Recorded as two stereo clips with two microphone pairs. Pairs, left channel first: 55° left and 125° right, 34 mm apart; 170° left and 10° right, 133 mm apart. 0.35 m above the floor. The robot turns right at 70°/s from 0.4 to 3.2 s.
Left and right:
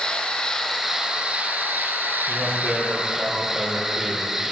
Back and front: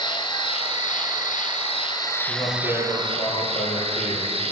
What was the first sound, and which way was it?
An insect, 120° left.